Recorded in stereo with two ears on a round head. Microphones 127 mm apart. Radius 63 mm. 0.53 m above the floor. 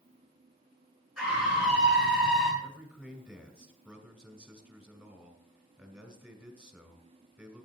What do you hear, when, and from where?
1.2 s a scream: 5° right (ahead or behind), 7.5 m
2.6 s a man speaking: 10° right (ahead or behind), 2 m